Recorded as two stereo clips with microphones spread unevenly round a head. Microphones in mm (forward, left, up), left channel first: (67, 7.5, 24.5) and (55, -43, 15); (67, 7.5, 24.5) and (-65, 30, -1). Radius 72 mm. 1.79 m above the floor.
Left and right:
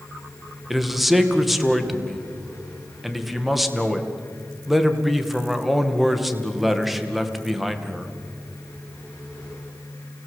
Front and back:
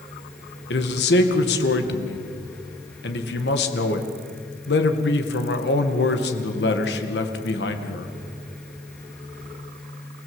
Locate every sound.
0.7 s a man speaking: 15° right, 2.5 m